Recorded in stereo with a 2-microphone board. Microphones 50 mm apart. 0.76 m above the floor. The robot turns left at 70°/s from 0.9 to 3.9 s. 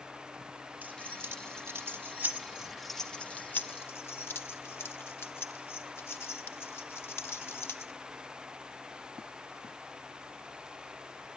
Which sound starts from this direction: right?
Keys jangling, at 0.8 s.